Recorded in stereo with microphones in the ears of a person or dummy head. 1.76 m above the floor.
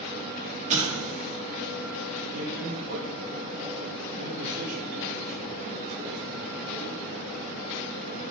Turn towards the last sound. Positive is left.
turn(degrees=-50)  # may be behind; listen again after turning